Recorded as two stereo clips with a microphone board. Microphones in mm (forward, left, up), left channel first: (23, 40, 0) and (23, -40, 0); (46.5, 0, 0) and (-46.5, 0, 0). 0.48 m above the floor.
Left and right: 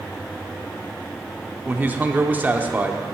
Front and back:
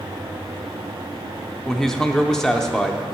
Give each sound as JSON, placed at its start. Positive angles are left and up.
{"t": 1.6, "sound": "a man speaking", "azimuth_deg": -75, "distance_m": 0.7}